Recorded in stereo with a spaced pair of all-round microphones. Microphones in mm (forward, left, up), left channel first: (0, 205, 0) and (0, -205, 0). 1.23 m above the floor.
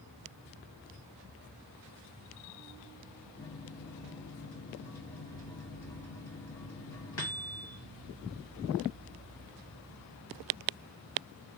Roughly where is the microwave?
Left.